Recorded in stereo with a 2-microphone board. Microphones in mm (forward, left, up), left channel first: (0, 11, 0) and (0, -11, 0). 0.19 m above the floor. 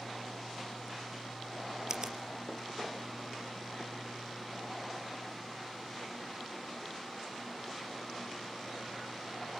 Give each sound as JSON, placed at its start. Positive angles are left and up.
{"t": 1.9, "sound": "a finger snap", "side_deg": -30, "distance_m": 3.5}